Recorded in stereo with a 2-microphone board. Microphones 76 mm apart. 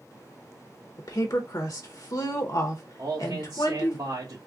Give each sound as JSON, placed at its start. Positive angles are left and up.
{"t": 1.0, "sound": "a woman speaking", "side_deg": 55, "distance_m": 0.7}
{"t": 3.0, "sound": "a man speaking", "side_deg": -60, "distance_m": 1.0}